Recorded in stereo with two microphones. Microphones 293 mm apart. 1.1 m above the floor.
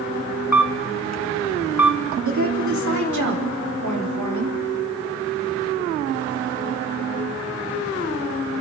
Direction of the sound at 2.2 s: 80° right.